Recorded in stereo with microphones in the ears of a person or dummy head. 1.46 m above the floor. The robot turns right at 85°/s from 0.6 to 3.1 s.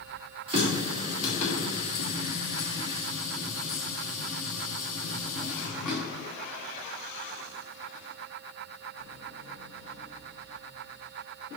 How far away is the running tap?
About 2 m.